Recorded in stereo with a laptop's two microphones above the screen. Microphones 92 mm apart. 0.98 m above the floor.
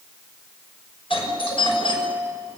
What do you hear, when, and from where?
1.1 s a doorbell: 75° left (ahead or behind), 6 m